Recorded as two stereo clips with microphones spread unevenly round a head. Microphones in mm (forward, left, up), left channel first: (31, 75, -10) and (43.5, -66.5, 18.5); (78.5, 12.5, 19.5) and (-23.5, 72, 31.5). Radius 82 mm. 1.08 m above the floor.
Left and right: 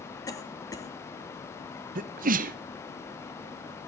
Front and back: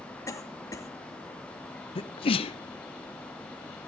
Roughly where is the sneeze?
Ahead right.